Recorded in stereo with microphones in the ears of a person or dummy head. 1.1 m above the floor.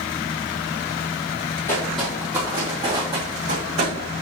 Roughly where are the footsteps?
Centre.